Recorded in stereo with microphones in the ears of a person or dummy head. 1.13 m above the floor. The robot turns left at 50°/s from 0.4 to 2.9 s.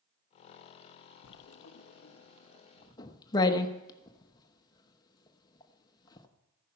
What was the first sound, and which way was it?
Writing, 75° left (ahead or behind).